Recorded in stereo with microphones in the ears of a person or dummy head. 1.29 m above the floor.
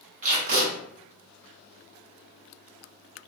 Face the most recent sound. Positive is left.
turn(degrees=-40)  # may be behind; listen again after turning